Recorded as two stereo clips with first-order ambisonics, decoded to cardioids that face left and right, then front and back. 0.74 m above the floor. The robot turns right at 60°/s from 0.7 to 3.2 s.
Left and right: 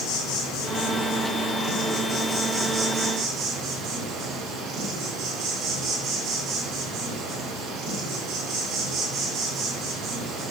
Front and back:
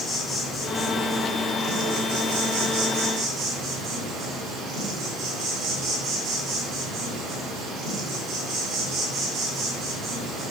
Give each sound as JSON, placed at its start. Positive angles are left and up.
{"t": 0.0, "sound": "an insect", "azimuth_deg": 65, "distance_m": 4.0}